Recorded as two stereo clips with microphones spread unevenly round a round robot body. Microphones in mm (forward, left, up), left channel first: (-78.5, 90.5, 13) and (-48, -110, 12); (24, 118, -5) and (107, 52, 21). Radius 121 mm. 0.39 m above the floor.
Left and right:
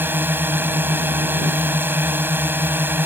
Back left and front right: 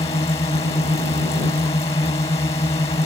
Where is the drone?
160° right.